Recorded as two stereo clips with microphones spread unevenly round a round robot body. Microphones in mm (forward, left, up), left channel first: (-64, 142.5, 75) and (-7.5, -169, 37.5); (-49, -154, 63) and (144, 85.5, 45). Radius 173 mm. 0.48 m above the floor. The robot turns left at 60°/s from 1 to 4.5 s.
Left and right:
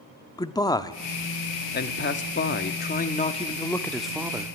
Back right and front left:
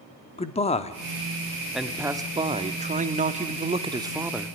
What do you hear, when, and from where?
0.4 s a man speaking: straight behind, 0.9 m; by 4.6 s 30° right, 0.9 m